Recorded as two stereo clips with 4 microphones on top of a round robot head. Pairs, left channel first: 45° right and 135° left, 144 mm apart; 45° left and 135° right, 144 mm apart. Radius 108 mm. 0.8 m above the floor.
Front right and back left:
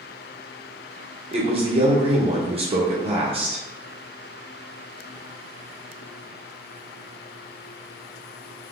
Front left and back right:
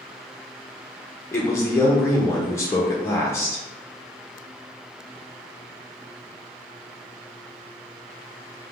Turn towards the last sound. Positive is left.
turn(degrees=110)